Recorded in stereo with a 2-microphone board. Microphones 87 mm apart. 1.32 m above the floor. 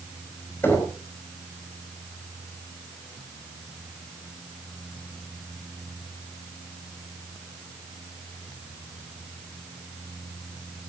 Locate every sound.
0.6 s knocking: 25° left (ahead or behind), 5.5 m